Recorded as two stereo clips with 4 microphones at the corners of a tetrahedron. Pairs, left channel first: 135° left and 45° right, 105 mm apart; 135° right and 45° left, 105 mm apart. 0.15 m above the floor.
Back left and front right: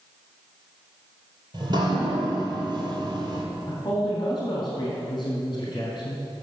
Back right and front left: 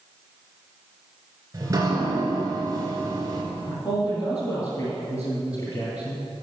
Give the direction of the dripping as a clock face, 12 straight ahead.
12 o'clock.